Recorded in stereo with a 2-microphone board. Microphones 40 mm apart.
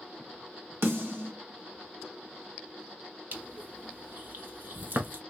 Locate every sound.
0.8 s a snare drum: 80° right, 1.5 m
3.3 s crushing: 55° right (ahead or behind), 0.9 m